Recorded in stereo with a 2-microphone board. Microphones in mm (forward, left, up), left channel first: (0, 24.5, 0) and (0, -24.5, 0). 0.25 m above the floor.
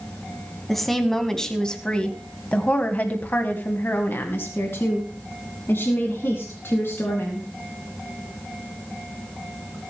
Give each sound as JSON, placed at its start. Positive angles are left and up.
{"t": 0.7, "sound": "a woman speaking", "side_deg": 0, "distance_m": 2.5}